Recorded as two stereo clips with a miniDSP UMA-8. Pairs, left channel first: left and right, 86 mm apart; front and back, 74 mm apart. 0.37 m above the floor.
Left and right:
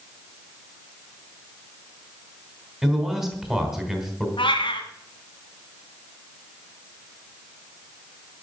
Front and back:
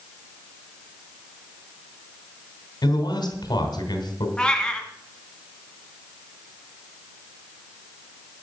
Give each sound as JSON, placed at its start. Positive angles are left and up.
{"t": 2.8, "sound": "a man speaking", "azimuth_deg": -5, "distance_m": 3.0}
{"t": 4.4, "sound": "a cat meowing", "azimuth_deg": 80, "distance_m": 1.5}